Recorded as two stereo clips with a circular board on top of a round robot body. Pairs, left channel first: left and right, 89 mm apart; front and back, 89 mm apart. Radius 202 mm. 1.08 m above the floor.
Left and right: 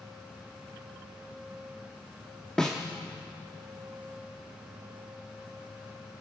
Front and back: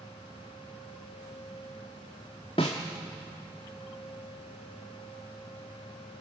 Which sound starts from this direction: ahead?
A snare drum, at 2.6 s.